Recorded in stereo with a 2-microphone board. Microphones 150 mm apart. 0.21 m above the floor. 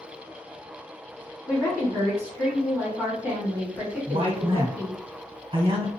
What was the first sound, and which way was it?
A woman speaking, 20° left (ahead or behind).